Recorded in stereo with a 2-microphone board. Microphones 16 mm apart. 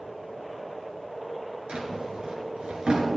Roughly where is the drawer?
Right.